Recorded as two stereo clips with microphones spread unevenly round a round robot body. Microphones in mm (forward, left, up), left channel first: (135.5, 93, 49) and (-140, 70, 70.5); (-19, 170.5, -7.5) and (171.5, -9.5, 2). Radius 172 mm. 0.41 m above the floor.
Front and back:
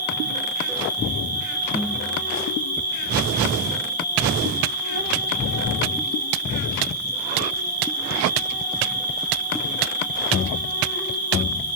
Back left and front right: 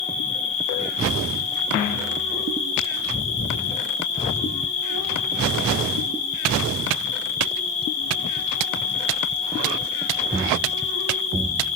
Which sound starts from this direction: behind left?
An insect, at 0.0 s.